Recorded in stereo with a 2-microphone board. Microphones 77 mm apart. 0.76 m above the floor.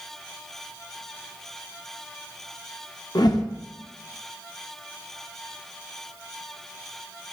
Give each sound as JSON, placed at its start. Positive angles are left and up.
{"t": 3.1, "sound": "a whoosh", "side_deg": 65, "distance_m": 1.0}